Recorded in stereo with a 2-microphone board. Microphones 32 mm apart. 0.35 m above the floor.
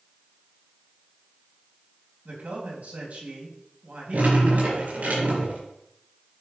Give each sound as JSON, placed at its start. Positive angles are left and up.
{"t": 2.2, "sound": "a man speaking", "side_deg": -55, "distance_m": 2.5}
{"t": 4.1, "sound": "dripping", "side_deg": -70, "distance_m": 4.5}